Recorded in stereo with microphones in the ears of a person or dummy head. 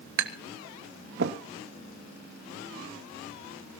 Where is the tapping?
65° right (ahead or behind), 1.4 m.